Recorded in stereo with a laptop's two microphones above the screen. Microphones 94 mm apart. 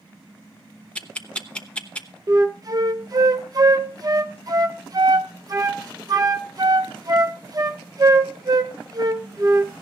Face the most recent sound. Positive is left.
turn(degrees=-40)  # may be behind; listen again after turning